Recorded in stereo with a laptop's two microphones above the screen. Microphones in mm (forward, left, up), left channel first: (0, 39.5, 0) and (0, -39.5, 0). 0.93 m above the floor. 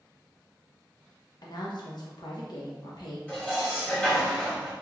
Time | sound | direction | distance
1.4 | a woman speaking | 65° left (ahead or behind) | 0.8 m
3.3 | dishes clattering | 15° left (ahead or behind) | 1.2 m